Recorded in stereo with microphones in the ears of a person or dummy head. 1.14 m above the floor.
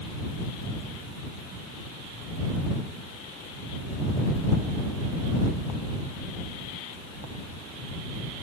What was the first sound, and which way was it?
Only background noise.